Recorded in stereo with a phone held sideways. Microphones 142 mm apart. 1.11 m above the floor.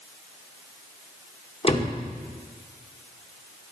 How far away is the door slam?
About 2.0 m.